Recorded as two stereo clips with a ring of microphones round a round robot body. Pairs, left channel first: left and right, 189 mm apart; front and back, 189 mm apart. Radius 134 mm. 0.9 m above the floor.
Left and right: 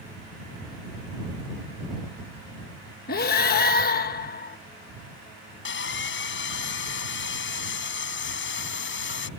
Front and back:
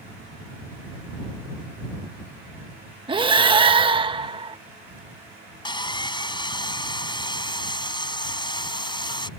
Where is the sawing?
65° left.